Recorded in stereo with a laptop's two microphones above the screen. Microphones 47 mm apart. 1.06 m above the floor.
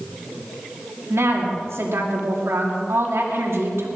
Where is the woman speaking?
80° right, 2.5 m.